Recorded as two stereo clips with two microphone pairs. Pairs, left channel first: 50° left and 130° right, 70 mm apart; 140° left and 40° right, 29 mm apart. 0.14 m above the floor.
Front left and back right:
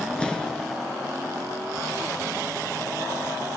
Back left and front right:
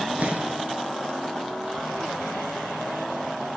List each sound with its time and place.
0.2 s an explosion: 20° right, 2 m